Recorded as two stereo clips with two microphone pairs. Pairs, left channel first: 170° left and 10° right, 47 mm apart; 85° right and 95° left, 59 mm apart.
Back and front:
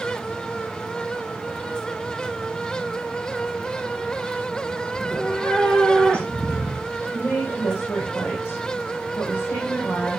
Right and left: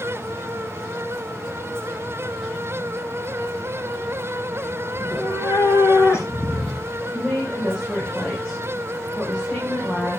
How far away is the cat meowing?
About 6 m.